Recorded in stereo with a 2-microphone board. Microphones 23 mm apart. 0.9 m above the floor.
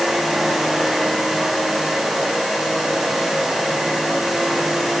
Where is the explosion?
I don't hear an explosion.